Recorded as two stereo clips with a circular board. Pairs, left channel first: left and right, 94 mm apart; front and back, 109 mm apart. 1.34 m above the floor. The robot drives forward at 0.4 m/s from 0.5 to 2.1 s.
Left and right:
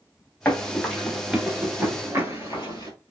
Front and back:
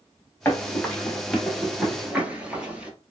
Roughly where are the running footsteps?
Ahead left.